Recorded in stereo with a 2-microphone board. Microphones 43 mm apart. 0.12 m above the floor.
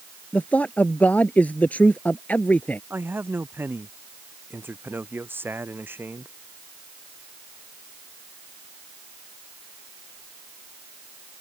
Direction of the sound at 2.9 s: 55° right (ahead or behind).